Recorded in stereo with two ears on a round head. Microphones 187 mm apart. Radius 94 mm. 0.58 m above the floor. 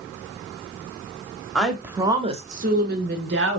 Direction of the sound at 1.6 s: 5° left (ahead or behind).